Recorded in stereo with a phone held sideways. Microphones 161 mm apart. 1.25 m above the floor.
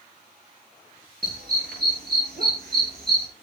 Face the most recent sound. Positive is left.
turn(degrees=-80)